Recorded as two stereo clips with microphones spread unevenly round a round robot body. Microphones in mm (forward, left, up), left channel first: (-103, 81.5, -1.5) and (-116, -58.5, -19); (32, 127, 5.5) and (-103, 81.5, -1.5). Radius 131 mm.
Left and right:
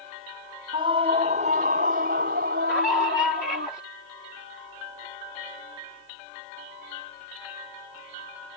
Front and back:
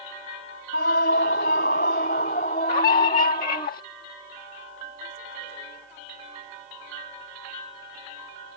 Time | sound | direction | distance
0.7 | a scream | 25° right | ?
2.7 | a scream | straight ahead | ?